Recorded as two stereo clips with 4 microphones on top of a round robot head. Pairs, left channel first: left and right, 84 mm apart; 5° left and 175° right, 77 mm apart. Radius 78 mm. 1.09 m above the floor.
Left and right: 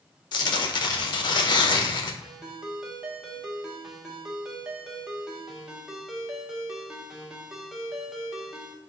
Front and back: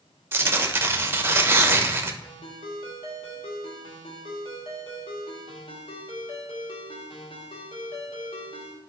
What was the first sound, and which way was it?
Tearing paper, 125° left.